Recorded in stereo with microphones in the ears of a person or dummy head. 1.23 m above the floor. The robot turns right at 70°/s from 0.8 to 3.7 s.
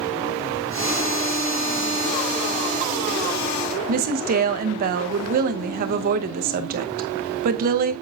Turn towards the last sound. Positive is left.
turn(degrees=-50)  # may be behind; listen again after turning